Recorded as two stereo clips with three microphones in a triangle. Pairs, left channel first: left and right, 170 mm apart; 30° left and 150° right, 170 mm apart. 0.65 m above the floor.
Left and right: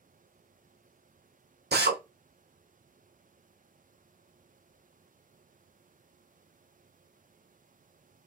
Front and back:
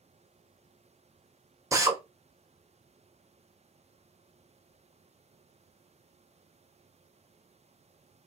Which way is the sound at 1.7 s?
80° right.